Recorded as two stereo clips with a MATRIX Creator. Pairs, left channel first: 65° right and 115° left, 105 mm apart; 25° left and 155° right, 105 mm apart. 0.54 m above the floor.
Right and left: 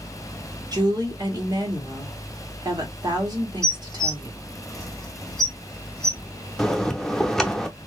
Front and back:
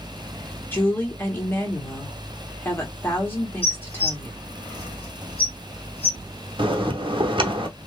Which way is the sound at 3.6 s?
15° left.